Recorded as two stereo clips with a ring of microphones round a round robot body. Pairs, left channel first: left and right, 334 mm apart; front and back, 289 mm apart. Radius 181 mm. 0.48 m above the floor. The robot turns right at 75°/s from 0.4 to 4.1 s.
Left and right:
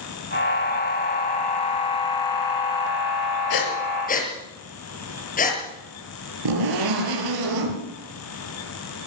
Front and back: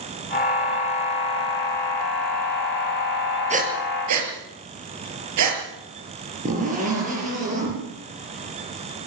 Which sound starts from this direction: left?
Breathing, at 3.5 s.